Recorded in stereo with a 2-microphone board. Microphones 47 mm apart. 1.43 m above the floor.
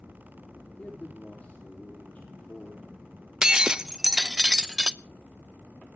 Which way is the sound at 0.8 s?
30° left (ahead or behind).